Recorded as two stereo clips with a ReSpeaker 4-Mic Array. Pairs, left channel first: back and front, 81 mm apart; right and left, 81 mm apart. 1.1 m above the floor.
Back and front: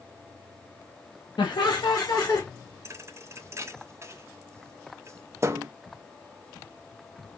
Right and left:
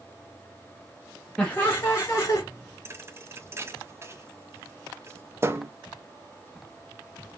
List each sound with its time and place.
1.4 s laughter: 170° right, 0.9 m; by 2.5 s 135° right, 1.6 m
2.9 s a thud: 45° left, 0.5 m